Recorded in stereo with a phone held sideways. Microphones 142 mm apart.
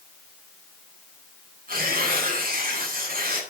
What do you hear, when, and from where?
1.7 s tearing paper: 85° right, 8.5 m